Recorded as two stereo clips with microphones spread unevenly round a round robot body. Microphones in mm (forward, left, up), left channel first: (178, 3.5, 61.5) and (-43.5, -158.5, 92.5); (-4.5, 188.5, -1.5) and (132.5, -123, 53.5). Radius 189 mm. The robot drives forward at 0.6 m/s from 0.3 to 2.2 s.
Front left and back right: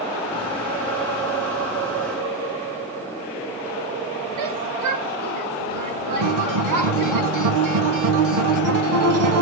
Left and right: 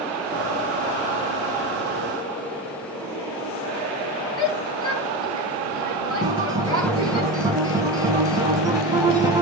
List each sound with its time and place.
4.4 s a shout: 165° right, 8 m
6.2 s a guitar: 150° right, 1.6 m